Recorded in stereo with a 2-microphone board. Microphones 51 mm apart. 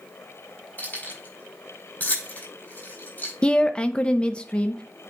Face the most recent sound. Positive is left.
turn(degrees=20)  # may be behind; listen again after turning